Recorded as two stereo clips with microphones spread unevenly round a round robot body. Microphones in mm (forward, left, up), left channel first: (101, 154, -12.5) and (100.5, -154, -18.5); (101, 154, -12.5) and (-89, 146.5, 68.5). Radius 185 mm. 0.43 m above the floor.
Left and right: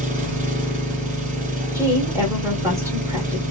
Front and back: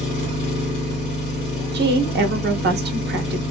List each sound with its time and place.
0.0 s an engine running: 35° right, 1.7 m
1.7 s a woman speaking: 160° right, 0.8 m